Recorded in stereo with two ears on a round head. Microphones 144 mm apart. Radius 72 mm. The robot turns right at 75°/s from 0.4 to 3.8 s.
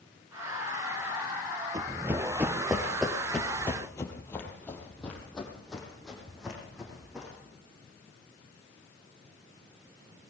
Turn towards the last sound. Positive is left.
turn(degrees=0)  # may be behind; listen again after turning